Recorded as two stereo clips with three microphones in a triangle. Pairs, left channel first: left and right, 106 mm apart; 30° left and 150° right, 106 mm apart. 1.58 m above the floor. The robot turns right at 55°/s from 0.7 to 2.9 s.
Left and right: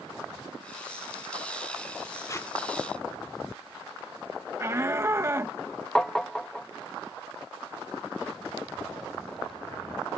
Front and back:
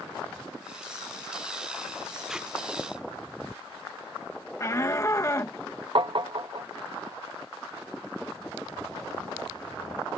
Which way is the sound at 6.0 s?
175° left.